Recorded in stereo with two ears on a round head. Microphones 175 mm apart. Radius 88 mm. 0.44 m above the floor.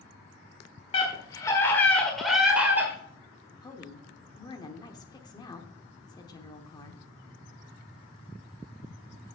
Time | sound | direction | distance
0.9 | a scream | 30° left (ahead or behind) | 1.5 m
3.6 | a woman speaking | 20° left (ahead or behind) | 1.0 m